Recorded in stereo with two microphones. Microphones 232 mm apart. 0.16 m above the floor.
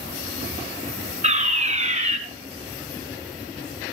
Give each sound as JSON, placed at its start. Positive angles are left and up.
{"t": 1.2, "sound": "a fire alarm", "side_deg": -30, "distance_m": 2.5}